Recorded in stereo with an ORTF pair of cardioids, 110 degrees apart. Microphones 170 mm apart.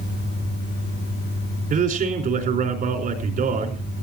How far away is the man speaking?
About 4.5 m.